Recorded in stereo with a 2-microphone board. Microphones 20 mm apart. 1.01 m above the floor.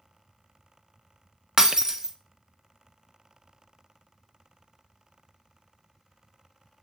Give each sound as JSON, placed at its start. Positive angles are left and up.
{"t": 1.6, "sound": "breaking glass", "side_deg": -25, "distance_m": 0.6}